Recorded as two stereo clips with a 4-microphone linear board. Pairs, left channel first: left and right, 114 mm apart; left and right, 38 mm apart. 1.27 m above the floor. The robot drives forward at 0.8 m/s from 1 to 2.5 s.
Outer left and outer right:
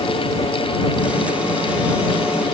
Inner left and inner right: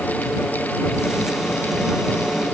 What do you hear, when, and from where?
Only background noise.